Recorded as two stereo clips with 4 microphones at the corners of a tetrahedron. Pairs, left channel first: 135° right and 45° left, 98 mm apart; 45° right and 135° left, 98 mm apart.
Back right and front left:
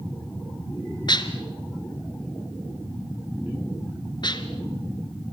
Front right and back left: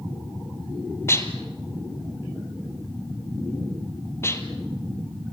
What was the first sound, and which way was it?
Dishes clattering, 105° right.